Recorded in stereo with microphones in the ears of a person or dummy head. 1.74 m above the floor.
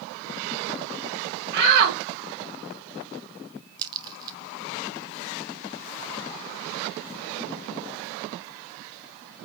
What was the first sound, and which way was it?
A shout, 60° right (ahead or behind).